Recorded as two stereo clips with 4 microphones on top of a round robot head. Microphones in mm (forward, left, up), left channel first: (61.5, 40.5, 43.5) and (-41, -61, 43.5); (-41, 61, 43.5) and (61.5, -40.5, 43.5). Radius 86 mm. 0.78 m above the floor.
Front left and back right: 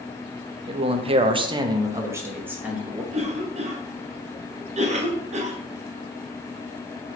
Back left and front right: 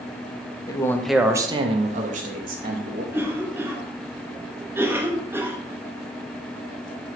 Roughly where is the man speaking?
Behind.